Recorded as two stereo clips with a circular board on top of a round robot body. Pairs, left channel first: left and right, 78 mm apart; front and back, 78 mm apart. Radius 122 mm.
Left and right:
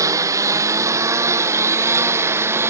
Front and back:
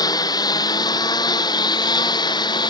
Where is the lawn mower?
40° right; by 2.7 s 30° right.